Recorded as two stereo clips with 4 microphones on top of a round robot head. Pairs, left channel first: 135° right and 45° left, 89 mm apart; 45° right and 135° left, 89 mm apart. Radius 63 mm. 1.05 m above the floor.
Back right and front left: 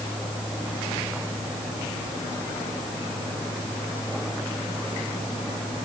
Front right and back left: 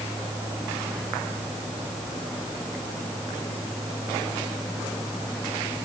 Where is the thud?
I don't hear a thud.